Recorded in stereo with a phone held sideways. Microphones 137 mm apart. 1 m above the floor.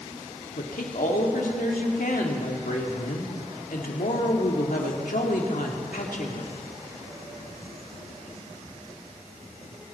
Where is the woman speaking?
85° left, 1.8 m.